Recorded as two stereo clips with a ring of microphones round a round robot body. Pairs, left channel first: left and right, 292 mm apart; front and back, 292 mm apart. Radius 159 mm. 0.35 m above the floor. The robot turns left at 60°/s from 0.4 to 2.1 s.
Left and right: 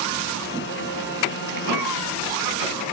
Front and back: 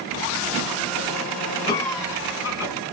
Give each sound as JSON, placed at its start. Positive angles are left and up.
{"t": 1.7, "sound": "a cough", "azimuth_deg": -75, "distance_m": 3.5}